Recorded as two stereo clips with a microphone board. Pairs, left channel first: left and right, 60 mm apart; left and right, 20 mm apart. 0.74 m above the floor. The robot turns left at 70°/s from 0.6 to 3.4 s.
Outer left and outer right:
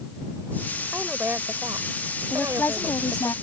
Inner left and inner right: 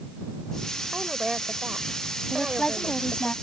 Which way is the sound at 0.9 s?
10° right.